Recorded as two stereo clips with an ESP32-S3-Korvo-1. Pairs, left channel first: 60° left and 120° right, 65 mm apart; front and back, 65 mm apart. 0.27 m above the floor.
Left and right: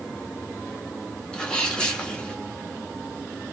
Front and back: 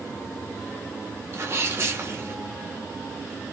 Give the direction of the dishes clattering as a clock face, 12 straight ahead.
I don't hear dishes clattering.